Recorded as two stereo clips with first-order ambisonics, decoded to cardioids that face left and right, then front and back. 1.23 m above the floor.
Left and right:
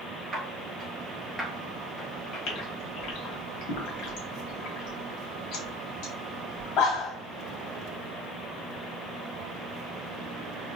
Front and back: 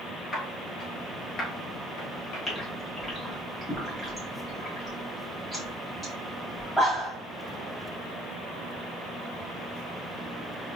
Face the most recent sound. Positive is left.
turn(degrees=90)